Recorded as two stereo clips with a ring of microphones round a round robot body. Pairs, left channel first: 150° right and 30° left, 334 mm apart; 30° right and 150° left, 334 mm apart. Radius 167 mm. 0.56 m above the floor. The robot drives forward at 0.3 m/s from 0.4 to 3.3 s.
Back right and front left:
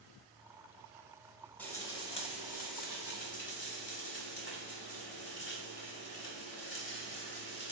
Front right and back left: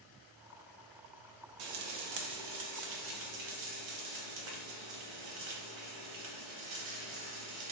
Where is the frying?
125° left, 0.6 m; by 7.7 s 150° left, 1.0 m.